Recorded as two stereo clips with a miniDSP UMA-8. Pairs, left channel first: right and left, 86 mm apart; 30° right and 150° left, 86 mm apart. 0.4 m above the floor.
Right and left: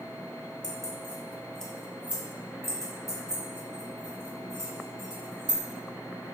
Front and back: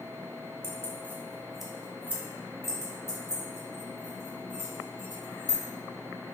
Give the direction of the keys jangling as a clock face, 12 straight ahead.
2 o'clock.